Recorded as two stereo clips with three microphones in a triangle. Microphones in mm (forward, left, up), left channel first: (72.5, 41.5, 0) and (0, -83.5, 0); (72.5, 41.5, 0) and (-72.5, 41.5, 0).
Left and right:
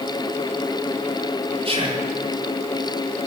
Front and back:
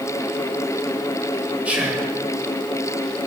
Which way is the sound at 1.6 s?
105° right.